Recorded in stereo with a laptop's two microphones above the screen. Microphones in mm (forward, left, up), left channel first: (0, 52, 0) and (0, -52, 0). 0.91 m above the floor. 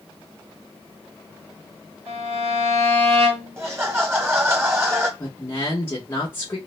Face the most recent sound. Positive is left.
turn(degrees=25)  # may be behind; listen again after turning